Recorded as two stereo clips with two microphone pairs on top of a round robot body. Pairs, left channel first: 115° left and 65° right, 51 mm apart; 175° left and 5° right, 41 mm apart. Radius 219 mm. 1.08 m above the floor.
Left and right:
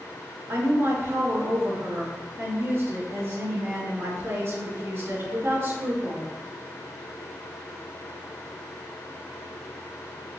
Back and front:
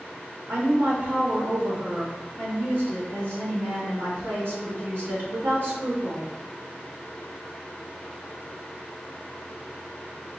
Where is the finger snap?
I don't hear a finger snap.